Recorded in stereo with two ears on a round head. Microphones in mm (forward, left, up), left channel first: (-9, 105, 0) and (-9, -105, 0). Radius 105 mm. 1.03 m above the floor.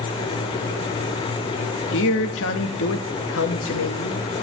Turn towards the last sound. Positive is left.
turn(degrees=60)  # may be behind; listen again after turning